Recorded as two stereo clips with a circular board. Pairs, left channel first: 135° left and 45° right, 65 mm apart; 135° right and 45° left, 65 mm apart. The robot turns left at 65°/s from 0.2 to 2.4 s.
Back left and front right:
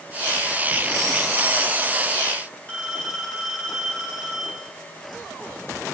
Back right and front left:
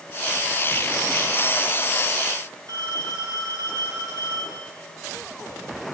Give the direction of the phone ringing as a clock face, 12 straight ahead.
10 o'clock.